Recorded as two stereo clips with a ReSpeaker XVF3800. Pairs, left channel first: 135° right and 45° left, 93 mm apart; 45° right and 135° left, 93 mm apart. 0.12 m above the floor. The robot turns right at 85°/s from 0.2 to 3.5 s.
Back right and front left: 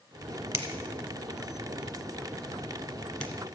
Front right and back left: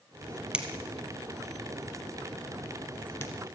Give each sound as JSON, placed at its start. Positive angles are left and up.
{"t": 0.5, "sound": "a finger snap", "azimuth_deg": 70, "distance_m": 1.1}